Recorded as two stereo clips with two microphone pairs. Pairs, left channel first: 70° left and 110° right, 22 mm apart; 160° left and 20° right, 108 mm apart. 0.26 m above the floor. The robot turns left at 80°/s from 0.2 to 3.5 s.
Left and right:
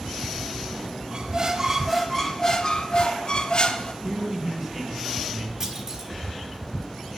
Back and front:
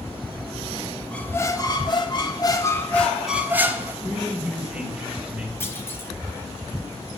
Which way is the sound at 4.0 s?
90° right.